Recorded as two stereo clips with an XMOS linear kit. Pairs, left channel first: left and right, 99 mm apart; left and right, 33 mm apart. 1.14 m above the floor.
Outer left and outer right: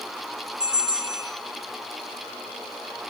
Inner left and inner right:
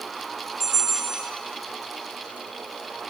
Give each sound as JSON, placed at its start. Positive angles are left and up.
{"t": 0.6, "sound": "a bell", "side_deg": -10, "distance_m": 4.5}